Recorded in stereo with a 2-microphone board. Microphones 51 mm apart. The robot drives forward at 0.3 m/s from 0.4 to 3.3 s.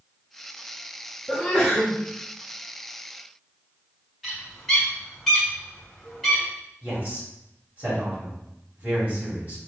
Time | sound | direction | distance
1.3 | a sneeze | 5° left (ahead or behind) | 0.9 m
4.2 | a bird | 5° left (ahead or behind) | 1.5 m
6.8 | a man speaking | 35° right (ahead or behind) | 2.5 m